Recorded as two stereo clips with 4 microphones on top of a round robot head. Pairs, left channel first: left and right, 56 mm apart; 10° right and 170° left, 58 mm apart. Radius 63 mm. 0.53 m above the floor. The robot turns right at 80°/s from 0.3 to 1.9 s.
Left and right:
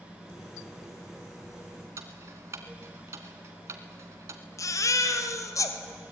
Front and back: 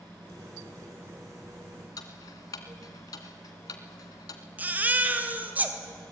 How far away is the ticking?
About 1.5 m.